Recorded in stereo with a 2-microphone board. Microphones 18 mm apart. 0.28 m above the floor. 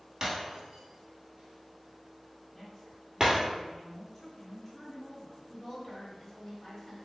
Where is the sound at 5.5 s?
25° left (ahead or behind), 1.4 m.